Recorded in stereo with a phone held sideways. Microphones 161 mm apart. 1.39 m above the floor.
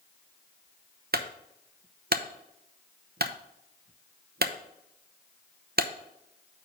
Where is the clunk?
75° right (ahead or behind), 0.7 m.